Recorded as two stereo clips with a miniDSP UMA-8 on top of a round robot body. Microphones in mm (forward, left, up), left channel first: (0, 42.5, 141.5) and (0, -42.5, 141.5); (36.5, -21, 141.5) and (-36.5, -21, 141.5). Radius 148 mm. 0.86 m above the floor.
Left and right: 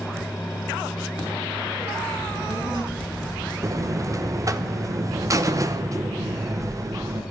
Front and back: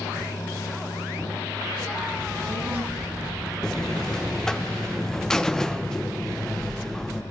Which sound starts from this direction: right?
A buzzer, at 3.6 s.